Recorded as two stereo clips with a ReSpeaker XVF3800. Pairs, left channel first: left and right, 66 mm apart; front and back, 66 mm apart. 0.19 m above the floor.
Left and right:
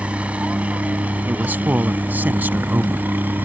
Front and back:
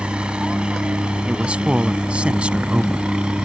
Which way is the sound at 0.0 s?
130° right.